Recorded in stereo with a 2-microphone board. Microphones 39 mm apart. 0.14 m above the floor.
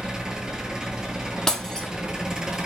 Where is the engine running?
20° right (ahead or behind), 0.7 m.